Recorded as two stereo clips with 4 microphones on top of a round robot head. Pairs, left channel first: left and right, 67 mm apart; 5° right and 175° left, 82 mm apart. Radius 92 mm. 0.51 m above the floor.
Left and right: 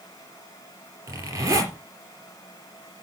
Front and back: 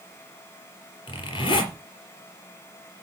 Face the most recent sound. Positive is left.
turn(degrees=-40)